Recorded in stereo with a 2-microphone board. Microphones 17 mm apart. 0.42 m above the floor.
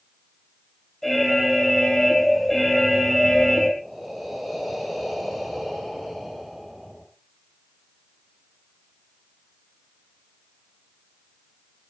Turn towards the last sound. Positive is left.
turn(degrees=0)  # may be behind; listen again after turning